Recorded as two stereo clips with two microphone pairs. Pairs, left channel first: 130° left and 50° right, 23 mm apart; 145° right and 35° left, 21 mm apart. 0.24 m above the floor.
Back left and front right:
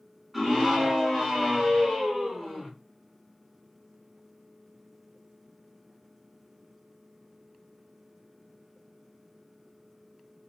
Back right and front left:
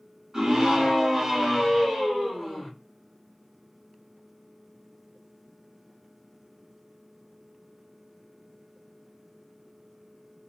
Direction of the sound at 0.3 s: 15° left.